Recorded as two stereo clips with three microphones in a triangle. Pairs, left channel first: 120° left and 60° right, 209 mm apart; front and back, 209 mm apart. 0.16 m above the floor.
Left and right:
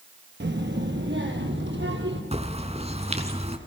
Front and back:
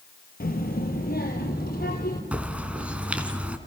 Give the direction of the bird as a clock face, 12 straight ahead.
3 o'clock.